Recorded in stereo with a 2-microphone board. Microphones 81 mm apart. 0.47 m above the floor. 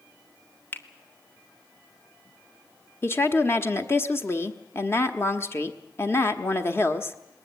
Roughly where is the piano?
No piano in this recording.